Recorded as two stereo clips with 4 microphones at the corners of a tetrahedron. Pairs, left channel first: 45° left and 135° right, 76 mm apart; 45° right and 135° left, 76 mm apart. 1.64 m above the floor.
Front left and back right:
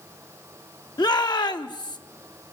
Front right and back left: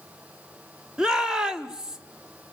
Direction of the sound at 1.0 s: 55° left.